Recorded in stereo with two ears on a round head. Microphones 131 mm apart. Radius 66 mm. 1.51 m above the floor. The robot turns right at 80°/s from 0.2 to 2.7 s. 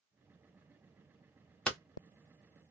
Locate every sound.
1.7 s hammering: 5° left (ahead or behind), 1.0 m; by 1.8 s centre (ahead or behind), 1.0 m